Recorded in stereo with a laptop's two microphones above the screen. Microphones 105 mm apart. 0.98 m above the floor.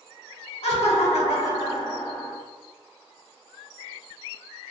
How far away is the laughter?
About 1.2 m.